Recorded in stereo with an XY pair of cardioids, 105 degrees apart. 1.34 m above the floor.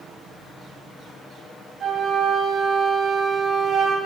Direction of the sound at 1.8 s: 45° right.